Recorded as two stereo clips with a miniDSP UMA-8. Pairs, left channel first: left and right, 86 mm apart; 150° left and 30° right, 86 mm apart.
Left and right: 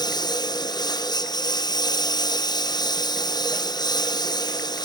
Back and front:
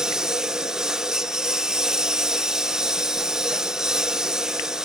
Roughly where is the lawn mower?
Ahead left.